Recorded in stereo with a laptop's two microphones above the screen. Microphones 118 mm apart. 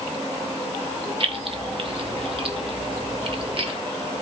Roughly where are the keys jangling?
Right.